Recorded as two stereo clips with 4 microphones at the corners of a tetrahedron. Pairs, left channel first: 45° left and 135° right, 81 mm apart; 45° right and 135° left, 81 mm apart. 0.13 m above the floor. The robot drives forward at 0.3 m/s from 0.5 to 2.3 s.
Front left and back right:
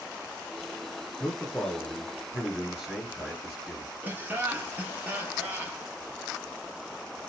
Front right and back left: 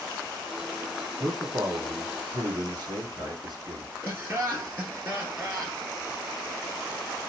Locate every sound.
1.2 s a man speaking: 125° left, 2.5 m; by 3.9 s 135° left, 2.5 m
4.0 s laughter: 170° left, 1.5 m